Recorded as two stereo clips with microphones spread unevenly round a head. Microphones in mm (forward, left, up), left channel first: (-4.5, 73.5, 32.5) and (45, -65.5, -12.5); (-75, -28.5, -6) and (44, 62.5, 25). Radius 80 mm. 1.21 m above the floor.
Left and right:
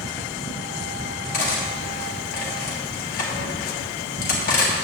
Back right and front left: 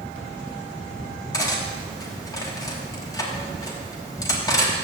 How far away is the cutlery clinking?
About 1.6 m.